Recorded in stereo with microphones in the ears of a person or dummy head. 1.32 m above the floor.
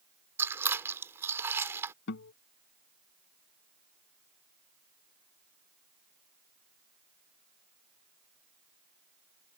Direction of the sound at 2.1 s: 60° left (ahead or behind).